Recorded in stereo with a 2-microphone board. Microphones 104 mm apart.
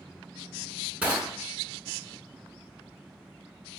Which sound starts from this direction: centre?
Crushing, at 1.0 s.